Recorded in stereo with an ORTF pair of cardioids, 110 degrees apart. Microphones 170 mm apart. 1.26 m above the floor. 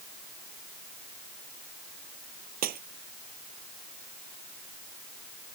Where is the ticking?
No ticking in this recording.